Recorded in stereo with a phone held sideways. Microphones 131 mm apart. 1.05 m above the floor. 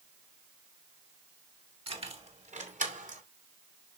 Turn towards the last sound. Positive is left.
turn(degrees=-80)